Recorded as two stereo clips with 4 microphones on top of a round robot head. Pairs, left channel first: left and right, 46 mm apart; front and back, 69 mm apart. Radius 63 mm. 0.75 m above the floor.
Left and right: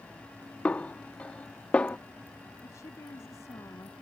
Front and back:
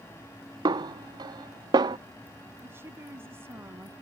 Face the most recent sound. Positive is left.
turn(degrees=125)